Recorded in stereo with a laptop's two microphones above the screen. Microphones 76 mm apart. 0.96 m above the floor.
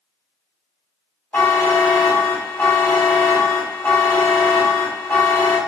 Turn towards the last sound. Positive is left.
turn(degrees=25)  # may be behind; listen again after turning